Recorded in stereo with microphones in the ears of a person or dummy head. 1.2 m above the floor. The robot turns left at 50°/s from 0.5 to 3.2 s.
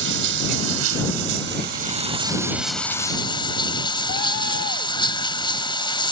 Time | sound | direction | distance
0.0 | running water | 70° right | ?